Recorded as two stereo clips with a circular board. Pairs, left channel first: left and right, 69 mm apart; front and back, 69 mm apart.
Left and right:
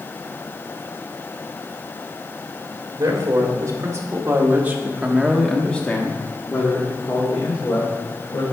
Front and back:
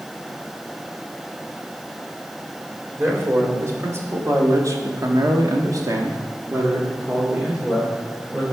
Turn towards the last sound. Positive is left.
turn(degrees=100)